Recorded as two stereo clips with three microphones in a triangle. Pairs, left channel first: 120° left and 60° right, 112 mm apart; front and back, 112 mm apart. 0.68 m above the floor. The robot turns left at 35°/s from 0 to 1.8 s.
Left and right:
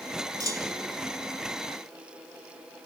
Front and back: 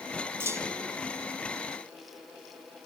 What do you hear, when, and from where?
0.4 s a clunk: 110° right; by 1.0 s 130° right